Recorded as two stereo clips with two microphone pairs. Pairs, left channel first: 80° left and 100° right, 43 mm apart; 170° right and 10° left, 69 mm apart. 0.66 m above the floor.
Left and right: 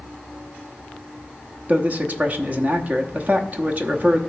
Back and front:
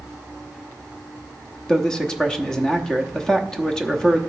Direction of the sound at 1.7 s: 95° right.